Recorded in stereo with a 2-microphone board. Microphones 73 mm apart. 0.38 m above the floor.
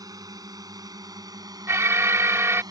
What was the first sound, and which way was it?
A drone, 60° right (ahead or behind).